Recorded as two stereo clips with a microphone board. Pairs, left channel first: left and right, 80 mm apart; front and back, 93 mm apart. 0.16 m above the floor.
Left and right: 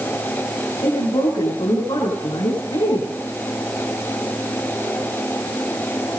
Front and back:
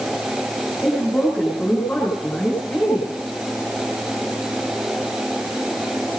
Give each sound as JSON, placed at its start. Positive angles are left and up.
{"t": 0.8, "sound": "a woman speaking", "azimuth_deg": 70, "distance_m": 8.5}